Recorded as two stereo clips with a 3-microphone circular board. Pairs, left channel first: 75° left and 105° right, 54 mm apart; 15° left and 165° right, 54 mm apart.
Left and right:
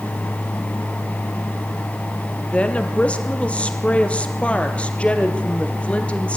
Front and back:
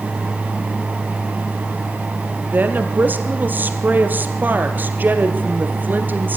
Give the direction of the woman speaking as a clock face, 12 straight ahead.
7 o'clock.